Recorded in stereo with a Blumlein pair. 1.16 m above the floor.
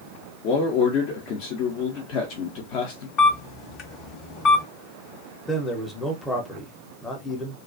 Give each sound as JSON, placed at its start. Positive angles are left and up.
{"t": 0.4, "sound": "a man speaking", "azimuth_deg": 45, "distance_m": 0.6}
{"t": 3.2, "sound": "a camera shutter", "azimuth_deg": 40, "distance_m": 0.9}
{"t": 5.5, "sound": "a man speaking", "azimuth_deg": 10, "distance_m": 0.7}